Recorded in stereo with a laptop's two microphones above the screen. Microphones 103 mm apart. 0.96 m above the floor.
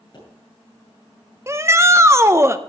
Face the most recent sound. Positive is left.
turn(degrees=-25)  # may be behind; listen again after turning